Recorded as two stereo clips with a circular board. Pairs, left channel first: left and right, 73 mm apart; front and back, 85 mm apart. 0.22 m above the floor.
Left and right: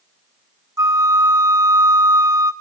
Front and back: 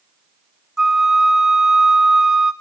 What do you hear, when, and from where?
0.8 s a flute: 100° right, 1.2 m